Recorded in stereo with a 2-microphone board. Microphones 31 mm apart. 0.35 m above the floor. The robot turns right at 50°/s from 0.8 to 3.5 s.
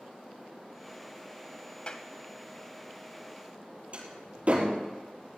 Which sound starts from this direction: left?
A clap, at 1.9 s.